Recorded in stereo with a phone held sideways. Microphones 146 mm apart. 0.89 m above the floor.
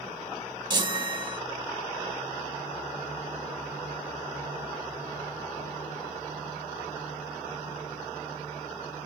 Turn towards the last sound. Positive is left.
turn(degrees=-30)  # may be behind; listen again after turning